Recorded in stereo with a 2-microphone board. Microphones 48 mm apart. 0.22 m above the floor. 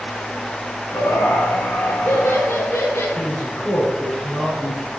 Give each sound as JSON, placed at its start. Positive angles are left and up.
{"t": 0.9, "sound": "laughter", "side_deg": 65, "distance_m": 2.5}
{"t": 3.2, "sound": "a man speaking", "side_deg": 20, "distance_m": 5.5}